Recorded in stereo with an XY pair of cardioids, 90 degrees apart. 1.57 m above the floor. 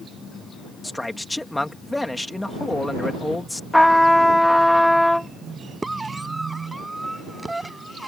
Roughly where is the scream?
Ahead.